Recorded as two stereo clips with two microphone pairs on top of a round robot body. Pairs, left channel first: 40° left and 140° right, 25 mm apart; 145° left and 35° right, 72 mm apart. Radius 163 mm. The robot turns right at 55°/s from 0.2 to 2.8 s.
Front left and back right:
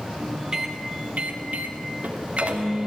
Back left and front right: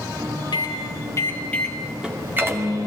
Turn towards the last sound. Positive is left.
turn(degrees=-75)